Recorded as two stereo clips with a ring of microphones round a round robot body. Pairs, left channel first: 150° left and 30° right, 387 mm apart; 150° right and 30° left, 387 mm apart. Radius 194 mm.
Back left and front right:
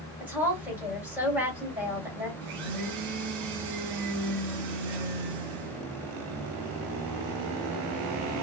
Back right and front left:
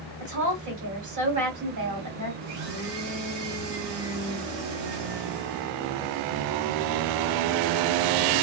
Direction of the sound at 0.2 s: 55° left.